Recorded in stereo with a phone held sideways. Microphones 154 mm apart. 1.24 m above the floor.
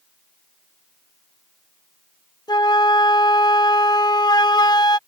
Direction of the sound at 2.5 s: 25° left (ahead or behind).